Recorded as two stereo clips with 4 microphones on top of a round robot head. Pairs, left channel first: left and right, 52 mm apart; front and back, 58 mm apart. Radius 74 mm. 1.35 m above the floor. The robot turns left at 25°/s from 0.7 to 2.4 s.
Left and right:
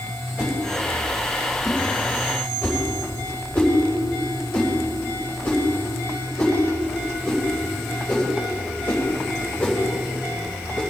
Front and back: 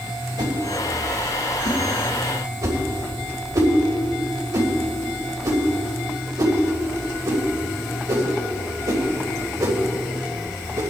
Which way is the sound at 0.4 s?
155° right.